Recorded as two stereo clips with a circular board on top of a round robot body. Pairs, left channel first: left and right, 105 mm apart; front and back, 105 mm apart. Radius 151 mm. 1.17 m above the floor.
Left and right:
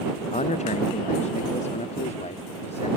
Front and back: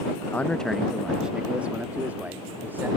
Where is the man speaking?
75° left; by 2.9 s 105° left.